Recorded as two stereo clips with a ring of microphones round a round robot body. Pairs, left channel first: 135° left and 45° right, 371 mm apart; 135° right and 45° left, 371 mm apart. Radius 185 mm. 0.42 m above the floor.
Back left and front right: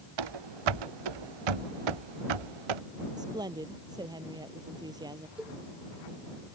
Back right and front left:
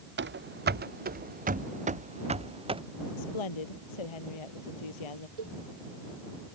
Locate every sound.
0.2 s running footsteps: 20° right; by 2.8 s 30° right
3.2 s a woman speaking: 125° right
5.4 s a cowbell: 45° left